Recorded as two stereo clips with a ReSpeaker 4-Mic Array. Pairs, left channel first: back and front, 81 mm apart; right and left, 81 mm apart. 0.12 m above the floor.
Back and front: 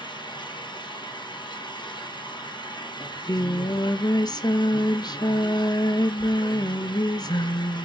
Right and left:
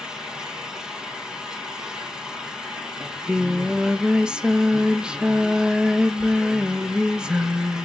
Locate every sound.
0.0 s an engine running: 170° left, 1.9 m
3.0 s singing: 170° left, 0.6 m